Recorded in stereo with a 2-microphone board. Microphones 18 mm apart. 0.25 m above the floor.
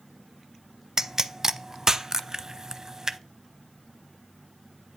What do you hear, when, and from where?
1.0 s a pop: 35° right (ahead or behind), 0.7 m